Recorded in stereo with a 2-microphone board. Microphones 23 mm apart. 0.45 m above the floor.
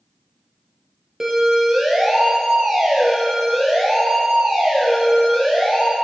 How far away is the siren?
About 6.5 m.